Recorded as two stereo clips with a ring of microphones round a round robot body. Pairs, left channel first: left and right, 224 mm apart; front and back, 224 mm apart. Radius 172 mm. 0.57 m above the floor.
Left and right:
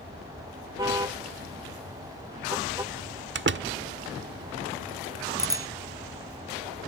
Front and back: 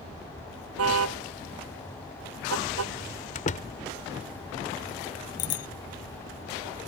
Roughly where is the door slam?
Ahead right.